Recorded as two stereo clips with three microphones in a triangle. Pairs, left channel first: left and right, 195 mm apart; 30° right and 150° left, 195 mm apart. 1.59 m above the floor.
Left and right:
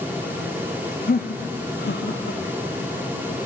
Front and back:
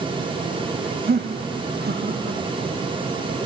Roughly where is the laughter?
Behind left.